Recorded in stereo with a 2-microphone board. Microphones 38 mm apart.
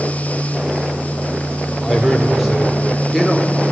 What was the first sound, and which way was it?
A man speaking, 5° right (ahead or behind).